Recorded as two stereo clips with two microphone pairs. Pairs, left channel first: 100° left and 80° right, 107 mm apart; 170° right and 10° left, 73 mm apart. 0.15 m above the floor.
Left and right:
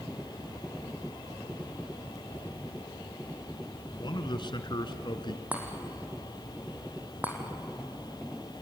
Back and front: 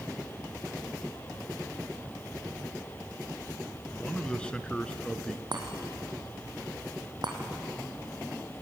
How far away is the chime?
About 3.5 m.